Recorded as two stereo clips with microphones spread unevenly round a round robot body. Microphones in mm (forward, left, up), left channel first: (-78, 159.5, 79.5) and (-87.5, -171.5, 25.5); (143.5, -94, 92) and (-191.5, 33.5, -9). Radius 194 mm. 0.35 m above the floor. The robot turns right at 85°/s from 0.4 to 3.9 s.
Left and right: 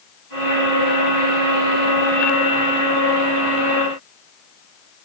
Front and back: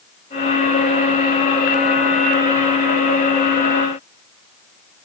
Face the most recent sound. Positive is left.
No sound to turn to.